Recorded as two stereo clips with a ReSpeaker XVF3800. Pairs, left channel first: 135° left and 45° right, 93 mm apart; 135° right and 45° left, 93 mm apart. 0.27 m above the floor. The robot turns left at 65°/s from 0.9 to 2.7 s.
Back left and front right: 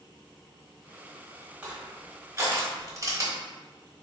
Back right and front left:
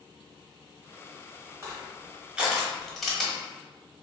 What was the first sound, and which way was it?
Crushing, 20° left.